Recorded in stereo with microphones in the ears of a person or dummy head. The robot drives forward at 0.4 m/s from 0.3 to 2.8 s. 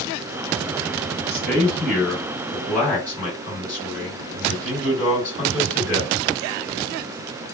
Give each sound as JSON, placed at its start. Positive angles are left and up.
{"t": 1.1, "sound": "a man speaking", "side_deg": 10, "distance_m": 1.4}